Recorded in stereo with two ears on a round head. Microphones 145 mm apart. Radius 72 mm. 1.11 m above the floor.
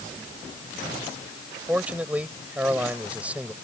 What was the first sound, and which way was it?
A man speaking, 10° right (ahead or behind).